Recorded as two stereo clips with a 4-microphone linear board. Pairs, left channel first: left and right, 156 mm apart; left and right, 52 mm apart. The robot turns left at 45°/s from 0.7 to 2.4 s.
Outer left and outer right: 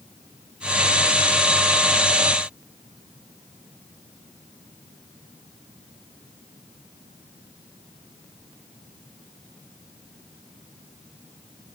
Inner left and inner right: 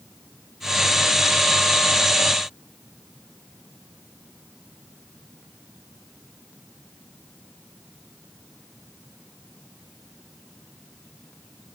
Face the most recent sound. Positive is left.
No sound to turn to.